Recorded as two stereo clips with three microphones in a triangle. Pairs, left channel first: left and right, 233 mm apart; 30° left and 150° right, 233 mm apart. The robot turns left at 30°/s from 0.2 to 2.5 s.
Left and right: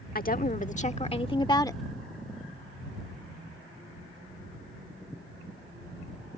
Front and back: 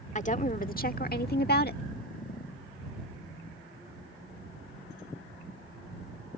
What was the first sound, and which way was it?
A woman speaking, 70° left.